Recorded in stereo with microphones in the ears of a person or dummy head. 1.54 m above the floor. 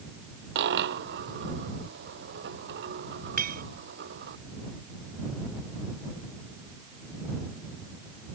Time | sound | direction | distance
0.6 | a dropped coin | 65° right (ahead or behind) | ?
3.4 | a clink | 45° right (ahead or behind) | ?